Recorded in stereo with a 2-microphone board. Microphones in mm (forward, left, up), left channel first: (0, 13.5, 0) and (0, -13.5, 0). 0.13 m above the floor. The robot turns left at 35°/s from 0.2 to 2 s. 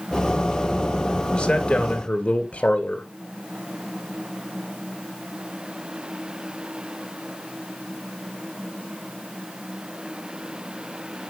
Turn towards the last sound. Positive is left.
turn(degrees=45)  # may be behind; listen again after turning